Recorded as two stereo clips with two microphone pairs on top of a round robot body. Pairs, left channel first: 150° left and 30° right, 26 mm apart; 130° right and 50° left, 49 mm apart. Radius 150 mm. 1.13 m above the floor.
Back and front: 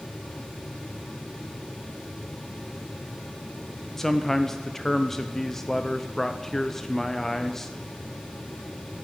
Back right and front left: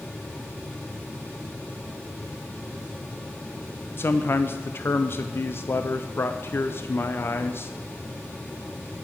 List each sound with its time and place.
4.0 s a man speaking: 160° right, 0.5 m